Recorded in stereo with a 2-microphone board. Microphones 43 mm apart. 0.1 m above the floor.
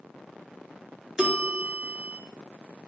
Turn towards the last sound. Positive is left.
turn(degrees=-15)  # may be behind; listen again after turning